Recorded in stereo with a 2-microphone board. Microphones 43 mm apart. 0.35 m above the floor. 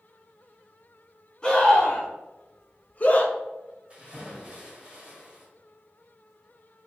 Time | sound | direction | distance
1.4 | a scream | 15° left (ahead or behind) | 2.5 m
3.9 | a splash | 25° right (ahead or behind) | 3 m